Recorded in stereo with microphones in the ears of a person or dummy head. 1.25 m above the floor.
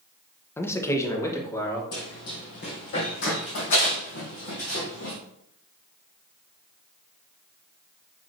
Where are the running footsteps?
50° left (ahead or behind), 2.5 m; by 5.2 s 65° left (ahead or behind), 4 m.